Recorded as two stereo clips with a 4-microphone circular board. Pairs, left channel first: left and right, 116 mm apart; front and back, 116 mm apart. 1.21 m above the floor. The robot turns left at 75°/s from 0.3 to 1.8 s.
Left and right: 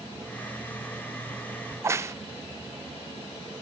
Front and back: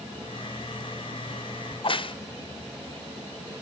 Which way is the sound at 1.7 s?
20° right.